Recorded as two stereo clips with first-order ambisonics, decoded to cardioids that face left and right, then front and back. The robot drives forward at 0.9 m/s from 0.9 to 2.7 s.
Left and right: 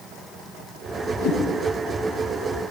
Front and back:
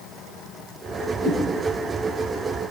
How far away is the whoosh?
About 4 m.